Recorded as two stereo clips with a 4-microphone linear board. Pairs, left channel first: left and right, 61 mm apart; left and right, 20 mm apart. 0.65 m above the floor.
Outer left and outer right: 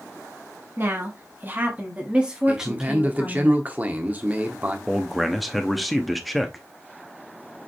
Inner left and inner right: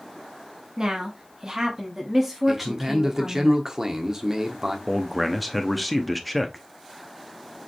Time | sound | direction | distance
0.8 | a woman speaking | 40° right (ahead or behind) | 1.5 m
2.5 | a man speaking | 30° right (ahead or behind) | 1.1 m
4.9 | a man speaking | centre (ahead or behind) | 0.7 m